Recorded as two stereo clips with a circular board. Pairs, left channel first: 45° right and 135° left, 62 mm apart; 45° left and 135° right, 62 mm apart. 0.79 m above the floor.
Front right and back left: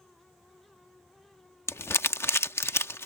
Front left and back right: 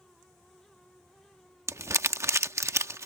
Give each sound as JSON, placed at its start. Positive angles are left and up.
{"t": 1.7, "sound": "crumpling", "azimuth_deg": -95}